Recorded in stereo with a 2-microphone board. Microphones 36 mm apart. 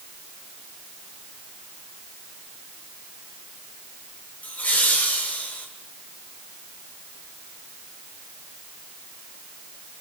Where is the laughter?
45° left (ahead or behind), 8 m; by 5.7 s 40° left (ahead or behind), 8 m.